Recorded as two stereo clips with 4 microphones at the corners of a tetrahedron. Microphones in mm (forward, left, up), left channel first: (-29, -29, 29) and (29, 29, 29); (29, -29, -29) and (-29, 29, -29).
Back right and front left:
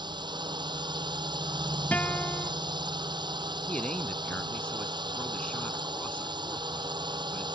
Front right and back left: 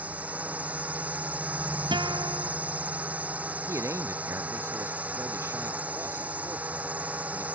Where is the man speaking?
160° left.